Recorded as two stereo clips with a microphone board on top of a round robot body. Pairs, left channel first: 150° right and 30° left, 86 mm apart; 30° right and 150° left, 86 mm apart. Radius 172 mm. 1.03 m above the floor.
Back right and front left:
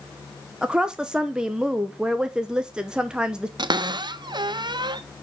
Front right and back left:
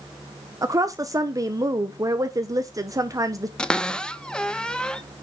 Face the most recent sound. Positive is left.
turn(degrees=50)